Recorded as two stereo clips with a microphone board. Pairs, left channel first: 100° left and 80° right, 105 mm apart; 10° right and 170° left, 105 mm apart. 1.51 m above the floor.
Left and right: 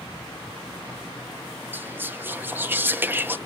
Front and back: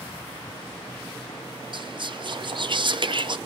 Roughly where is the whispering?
Behind right.